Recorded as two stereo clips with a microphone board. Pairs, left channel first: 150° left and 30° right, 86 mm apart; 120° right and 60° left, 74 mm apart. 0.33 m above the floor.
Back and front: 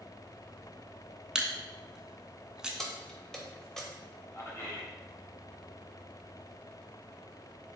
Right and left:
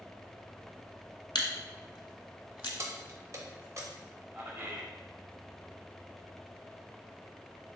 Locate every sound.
1.4 s a camera shutter: 110° right, 0.6 m
2.8 s keys jangling: 70° left, 0.7 m
4.3 s a man speaking: 105° left, 1.4 m